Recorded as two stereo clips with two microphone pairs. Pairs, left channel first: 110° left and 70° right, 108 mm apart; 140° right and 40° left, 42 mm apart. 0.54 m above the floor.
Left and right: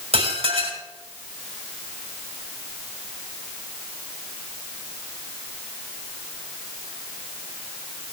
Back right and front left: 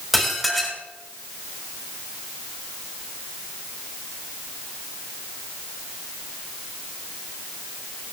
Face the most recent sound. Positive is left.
turn(degrees=-50)